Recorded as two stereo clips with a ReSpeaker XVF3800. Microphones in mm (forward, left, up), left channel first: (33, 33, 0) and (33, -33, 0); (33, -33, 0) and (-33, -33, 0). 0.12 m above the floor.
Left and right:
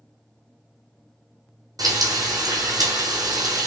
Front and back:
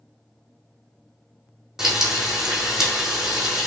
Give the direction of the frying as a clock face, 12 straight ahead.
3 o'clock.